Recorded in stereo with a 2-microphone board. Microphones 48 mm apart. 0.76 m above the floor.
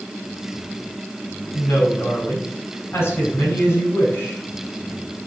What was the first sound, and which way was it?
A woman speaking, 60° left (ahead or behind).